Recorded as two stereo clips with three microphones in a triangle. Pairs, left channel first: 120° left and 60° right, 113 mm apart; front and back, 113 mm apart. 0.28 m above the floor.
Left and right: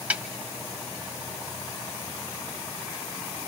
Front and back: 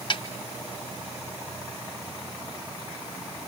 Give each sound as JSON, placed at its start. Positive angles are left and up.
{"t": 0.1, "sound": "a snare drum", "azimuth_deg": 10, "distance_m": 1.7}